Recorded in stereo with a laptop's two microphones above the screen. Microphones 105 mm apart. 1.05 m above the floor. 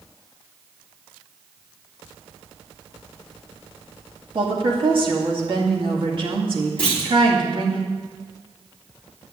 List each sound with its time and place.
4.3 s a woman speaking: 50° right (ahead or behind), 2.5 m
6.8 s a clunk: 10° left (ahead or behind), 3 m